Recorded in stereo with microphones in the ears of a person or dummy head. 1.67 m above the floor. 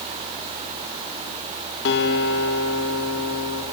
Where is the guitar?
65° left (ahead or behind), 2.5 m.